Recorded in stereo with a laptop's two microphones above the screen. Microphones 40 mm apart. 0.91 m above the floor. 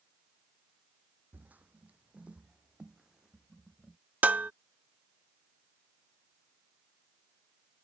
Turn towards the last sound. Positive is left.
turn(degrees=-45)  # may be behind; listen again after turning